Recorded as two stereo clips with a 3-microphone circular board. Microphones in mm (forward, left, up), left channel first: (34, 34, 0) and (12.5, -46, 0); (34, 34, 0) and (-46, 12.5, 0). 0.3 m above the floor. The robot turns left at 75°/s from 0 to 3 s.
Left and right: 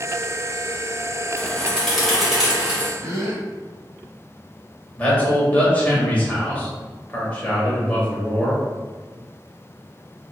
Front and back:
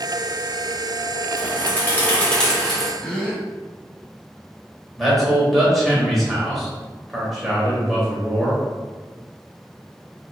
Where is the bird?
35° left, 1.2 m; by 2.9 s 80° right, 1.2 m.